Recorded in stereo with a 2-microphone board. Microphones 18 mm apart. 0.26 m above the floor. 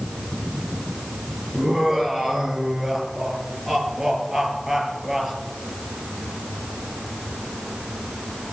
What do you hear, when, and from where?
1.5 s laughter: 30° right (ahead or behind), 4.5 m